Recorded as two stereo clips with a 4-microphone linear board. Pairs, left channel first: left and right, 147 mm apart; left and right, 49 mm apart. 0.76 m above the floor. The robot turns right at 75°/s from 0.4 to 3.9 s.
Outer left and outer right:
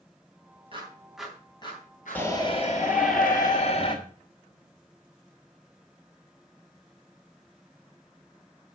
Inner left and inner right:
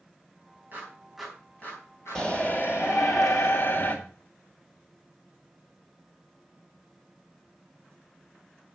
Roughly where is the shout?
Ahead.